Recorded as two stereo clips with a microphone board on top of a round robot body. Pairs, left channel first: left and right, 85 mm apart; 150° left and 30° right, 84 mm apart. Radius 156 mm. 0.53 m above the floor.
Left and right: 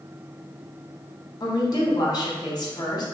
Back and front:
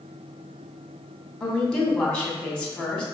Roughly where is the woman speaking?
Left.